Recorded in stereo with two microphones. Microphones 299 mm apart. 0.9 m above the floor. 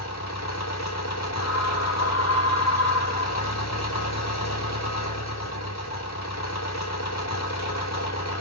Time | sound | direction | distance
0.0 | an engine running | 60° left (ahead or behind) | 3 m
1.4 | a scream | 60° left (ahead or behind) | 4.5 m